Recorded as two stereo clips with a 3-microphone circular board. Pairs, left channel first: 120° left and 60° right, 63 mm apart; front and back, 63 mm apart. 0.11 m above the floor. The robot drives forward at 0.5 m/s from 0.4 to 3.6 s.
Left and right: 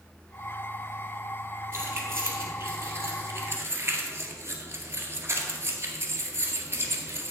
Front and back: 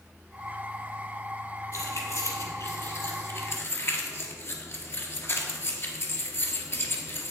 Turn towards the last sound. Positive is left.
turn(degrees=-25)